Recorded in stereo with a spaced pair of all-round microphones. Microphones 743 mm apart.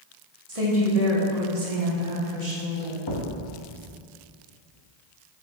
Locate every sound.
0.5 s a woman speaking: 45° right (ahead or behind), 1.4 m; by 3.0 s 75° right (ahead or behind), 1.7 m
3.1 s a thud: 30° left (ahead or behind), 0.8 m